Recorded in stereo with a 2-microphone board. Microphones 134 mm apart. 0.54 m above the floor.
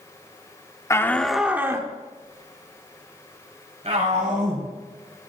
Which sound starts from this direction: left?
A shout, at 0.9 s.